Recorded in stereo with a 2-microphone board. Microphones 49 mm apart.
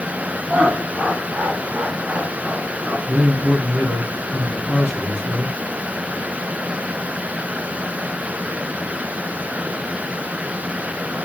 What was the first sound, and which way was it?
Laughter, 30° right (ahead or behind).